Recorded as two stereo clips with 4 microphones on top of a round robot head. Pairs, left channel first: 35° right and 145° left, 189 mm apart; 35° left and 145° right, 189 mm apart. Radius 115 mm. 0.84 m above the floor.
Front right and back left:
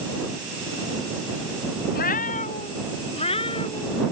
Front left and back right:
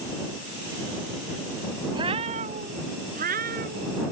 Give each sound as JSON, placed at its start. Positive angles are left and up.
{"t": 1.9, "sound": "a cat meowing", "azimuth_deg": -75}